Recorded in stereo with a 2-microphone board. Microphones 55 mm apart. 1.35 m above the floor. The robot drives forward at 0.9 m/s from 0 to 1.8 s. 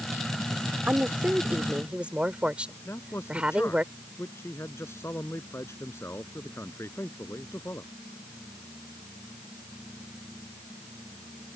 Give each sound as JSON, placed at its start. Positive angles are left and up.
{"t": 0.9, "sound": "a woman speaking", "side_deg": -30}
{"t": 2.9, "sound": "a man speaking", "side_deg": 60}